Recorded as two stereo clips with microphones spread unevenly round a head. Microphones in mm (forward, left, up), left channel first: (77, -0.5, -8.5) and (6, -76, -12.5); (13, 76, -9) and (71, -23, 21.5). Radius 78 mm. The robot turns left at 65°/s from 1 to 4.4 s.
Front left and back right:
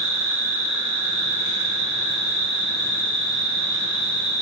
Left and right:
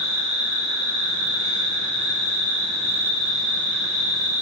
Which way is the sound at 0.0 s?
145° right.